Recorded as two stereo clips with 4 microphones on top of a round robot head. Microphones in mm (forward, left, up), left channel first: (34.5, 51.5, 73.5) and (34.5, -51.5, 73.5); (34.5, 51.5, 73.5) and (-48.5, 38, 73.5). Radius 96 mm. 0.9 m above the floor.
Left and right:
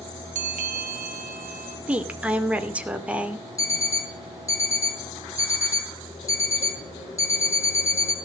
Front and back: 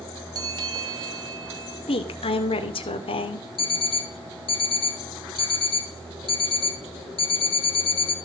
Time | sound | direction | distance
0.3 | a bell | 110° right | 1.1 m
1.9 | a woman speaking | 10° right | 2.5 m
3.6 | an alarm clock | 30° left | 4 m